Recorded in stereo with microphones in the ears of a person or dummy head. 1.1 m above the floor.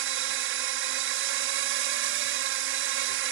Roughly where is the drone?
Right.